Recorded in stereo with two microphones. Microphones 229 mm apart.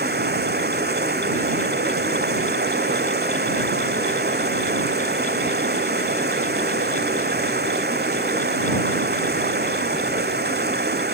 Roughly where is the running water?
Right.